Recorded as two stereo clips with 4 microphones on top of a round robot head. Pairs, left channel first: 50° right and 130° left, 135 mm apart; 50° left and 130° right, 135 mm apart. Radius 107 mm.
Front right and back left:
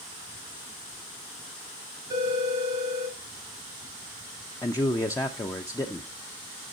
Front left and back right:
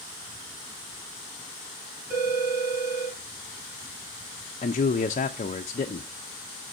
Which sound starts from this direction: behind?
A phone ringing, at 2.1 s.